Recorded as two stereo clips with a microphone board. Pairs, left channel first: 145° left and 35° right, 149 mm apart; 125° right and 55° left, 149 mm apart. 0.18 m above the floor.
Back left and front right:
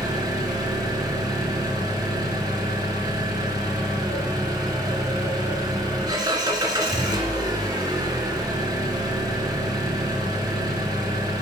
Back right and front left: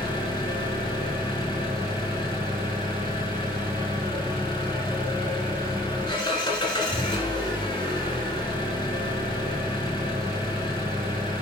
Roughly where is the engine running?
Right.